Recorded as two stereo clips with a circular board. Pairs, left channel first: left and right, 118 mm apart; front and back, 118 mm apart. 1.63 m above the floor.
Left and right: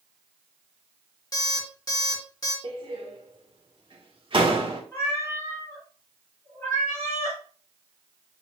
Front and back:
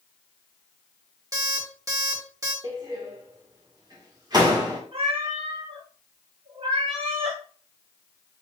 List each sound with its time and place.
1.3 s an alarm clock: 130° left, 1.6 m
2.6 s a door slam: 130° right, 1.4 m
4.9 s a cat meowing: 155° left, 3 m